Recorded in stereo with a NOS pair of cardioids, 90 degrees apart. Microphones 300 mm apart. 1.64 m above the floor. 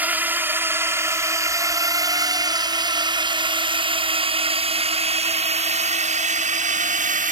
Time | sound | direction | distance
0.0 | a drone | 5° right | ?